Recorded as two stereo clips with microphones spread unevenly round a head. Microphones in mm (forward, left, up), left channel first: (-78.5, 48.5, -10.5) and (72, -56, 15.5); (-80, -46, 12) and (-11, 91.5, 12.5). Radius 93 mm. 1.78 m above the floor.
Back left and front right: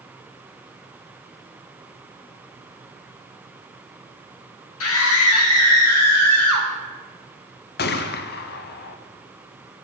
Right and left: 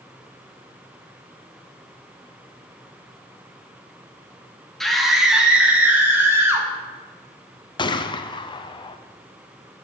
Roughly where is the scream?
Behind left.